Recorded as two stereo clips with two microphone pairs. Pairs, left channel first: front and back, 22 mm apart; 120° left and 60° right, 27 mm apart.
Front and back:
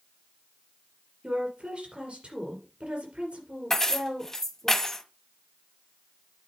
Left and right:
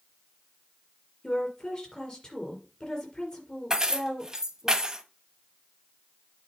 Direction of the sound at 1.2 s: 175° left.